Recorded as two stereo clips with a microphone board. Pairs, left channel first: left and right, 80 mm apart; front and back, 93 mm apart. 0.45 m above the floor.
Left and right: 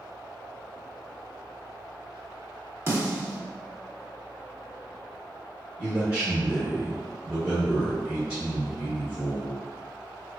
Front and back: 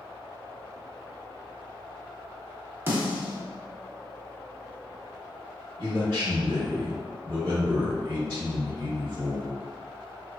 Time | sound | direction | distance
2.9 | a snare drum | 125° right | 0.8 m
5.8 | a man speaking | 160° right | 1.0 m